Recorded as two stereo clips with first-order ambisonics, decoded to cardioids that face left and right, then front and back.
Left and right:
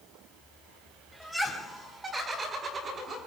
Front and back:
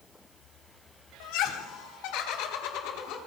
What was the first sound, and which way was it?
Laughter, straight ahead.